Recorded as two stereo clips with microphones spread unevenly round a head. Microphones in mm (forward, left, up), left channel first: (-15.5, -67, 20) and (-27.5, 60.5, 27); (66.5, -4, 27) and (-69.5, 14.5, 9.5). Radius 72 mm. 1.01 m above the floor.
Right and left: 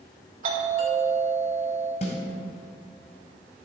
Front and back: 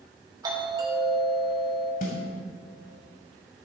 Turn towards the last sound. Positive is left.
turn(degrees=-40)